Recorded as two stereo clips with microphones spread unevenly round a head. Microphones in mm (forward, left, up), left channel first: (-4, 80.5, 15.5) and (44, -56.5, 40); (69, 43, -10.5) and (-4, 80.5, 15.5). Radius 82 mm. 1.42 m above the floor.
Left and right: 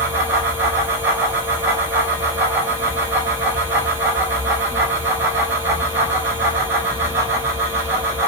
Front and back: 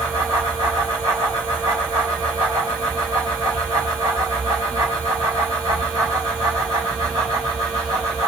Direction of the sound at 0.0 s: 140° right.